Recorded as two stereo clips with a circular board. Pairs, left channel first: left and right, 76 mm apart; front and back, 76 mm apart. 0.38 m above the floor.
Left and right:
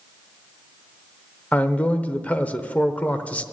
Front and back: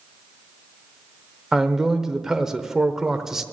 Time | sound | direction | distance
1.5 | a man speaking | 105° left | 0.9 m